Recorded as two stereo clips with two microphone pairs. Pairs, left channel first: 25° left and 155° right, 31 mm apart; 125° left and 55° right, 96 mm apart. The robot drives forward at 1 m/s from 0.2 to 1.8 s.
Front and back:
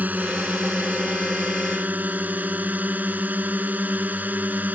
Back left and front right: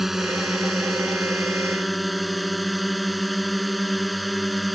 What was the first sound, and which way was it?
A drone, 140° right.